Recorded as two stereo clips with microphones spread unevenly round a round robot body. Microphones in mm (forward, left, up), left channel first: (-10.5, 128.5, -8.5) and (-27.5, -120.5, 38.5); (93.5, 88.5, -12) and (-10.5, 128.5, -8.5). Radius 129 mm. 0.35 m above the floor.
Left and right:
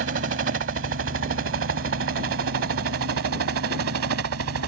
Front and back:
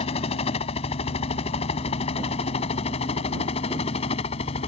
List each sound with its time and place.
0.0 s a helicopter: 50° right; by 4.7 s 60° right